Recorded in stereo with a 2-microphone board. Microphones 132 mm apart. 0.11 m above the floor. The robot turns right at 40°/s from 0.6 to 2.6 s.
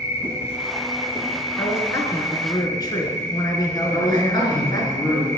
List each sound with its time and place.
0.0 s an insect: 160° right, 1.0 m; by 5.4 s 80° right, 1.0 m
1.6 s a man speaking: 35° left, 1.2 m; by 4.9 s 75° left, 1.2 m
3.9 s a man speaking: 30° left (ahead or behind), 1.5 m